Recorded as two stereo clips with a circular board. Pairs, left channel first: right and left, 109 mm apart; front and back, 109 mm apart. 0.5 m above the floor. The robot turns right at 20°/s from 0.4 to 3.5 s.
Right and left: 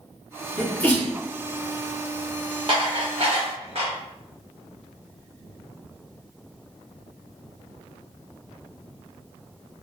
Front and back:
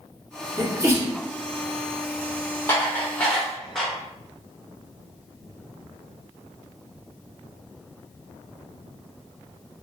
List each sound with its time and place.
0.6 s a sneeze: 160° right, 0.7 m; by 1.1 s 150° right, 0.7 m
2.7 s dishes clattering: 70° left, 0.8 m; by 3.9 s 85° left, 0.8 m